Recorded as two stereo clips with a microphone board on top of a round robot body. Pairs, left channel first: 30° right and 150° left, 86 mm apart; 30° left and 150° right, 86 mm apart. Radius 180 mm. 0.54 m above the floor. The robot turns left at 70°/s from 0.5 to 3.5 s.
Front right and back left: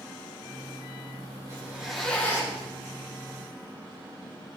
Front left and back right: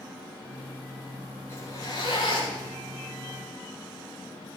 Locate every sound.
1.5 s a zipper: 90° left, 7.5 m; by 2.7 s 10° left, 7.5 m